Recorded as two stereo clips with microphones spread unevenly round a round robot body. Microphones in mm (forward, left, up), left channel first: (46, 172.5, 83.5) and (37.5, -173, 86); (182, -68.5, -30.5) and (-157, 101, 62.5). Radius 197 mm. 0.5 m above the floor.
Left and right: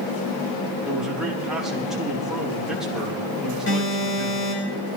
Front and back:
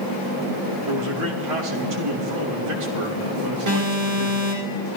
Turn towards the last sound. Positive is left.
turn(degrees=145)